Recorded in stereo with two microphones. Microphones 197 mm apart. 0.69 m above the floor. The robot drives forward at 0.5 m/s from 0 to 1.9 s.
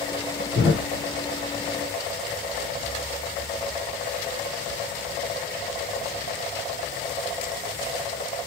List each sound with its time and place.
0.6 s a thud: 70° left (ahead or behind), 1.5 m; by 0.9 s 75° left (ahead or behind), 1.5 m